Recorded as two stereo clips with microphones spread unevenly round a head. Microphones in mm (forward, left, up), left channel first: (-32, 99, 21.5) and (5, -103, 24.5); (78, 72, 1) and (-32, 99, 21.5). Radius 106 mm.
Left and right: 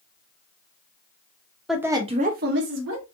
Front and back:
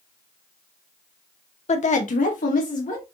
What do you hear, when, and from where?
1.7 s a woman speaking: 10° left, 0.9 m; by 3.0 s 55° right, 1.4 m